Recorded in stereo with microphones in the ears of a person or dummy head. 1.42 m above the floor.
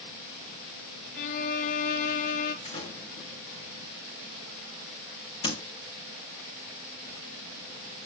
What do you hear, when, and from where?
1.1 s a violin: 40° left (ahead or behind), 0.8 m
2.6 s a door slam: 35° left (ahead or behind), 1.5 m